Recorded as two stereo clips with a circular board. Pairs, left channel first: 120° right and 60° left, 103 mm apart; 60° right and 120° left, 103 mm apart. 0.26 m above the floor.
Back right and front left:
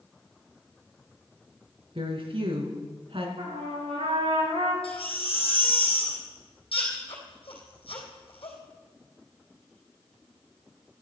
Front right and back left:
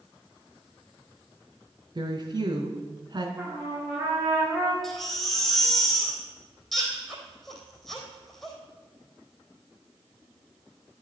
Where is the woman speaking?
80° left, 2.5 m.